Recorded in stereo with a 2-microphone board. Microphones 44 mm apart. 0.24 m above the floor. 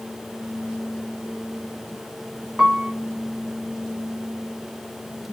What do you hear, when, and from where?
2.6 s a piano: 5° right (ahead or behind), 0.8 m